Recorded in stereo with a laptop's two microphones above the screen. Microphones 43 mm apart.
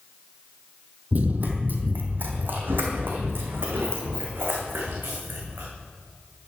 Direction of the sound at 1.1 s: 40° right (ahead or behind).